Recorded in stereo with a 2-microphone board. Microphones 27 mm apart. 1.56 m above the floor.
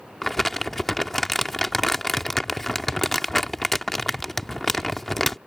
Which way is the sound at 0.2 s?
10° left (ahead or behind).